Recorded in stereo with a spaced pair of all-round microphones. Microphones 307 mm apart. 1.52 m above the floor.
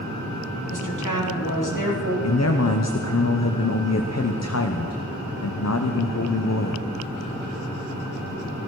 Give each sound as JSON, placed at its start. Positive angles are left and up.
{"t": 0.7, "sound": "a woman speaking", "side_deg": 75, "distance_m": 3.0}
{"t": 2.2, "sound": "a man speaking", "side_deg": 55, "distance_m": 0.7}